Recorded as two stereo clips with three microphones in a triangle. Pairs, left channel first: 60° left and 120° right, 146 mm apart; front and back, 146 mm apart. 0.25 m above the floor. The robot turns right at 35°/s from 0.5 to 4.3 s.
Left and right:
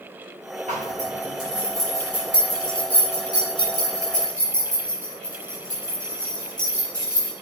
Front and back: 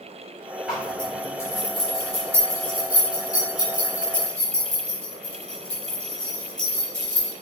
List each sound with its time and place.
0.7 s a zipper: 95° right, 4 m; by 7.3 s 35° left, 4 m